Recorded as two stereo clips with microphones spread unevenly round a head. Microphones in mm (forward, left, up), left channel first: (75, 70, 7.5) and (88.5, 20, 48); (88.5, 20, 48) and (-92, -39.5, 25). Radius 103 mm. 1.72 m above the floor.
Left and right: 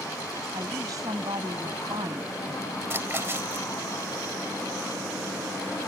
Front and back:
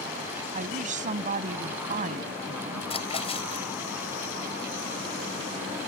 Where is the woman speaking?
110° right.